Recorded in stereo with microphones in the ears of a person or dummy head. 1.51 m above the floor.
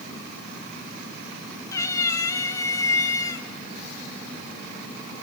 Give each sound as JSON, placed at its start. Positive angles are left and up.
{"t": 1.7, "sound": "a cat meowing", "side_deg": 20, "distance_m": 1.4}